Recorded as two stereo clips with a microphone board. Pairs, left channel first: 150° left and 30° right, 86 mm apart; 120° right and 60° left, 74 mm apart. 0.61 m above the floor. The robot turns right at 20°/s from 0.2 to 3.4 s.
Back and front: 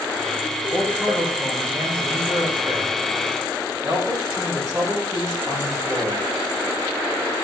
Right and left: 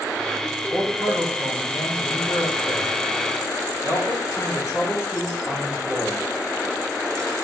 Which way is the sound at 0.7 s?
130° right.